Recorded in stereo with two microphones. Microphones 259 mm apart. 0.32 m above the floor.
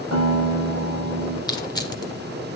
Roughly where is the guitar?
Right.